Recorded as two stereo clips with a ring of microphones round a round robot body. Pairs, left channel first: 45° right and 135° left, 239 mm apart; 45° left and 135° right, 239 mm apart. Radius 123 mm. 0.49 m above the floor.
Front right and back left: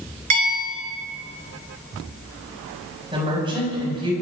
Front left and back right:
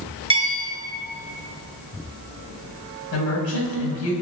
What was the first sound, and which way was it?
A bell, 155° left.